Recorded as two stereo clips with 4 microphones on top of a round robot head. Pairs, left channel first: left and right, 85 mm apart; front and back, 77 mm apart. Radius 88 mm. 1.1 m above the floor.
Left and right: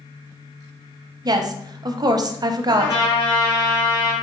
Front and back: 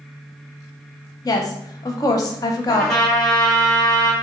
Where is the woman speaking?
50° right, 0.6 m.